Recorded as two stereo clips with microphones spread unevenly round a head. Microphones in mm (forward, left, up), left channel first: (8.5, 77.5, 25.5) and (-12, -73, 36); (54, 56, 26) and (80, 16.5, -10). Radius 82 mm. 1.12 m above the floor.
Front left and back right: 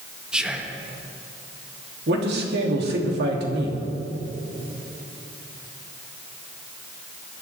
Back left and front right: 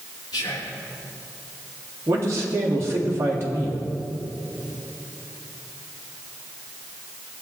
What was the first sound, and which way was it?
Whispering, 175° left.